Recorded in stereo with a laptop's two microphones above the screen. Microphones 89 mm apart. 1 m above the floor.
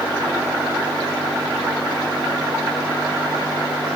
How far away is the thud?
No thud in this recording.